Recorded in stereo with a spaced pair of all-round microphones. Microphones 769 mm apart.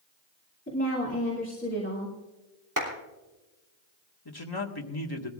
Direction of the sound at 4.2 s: 30° left (ahead or behind).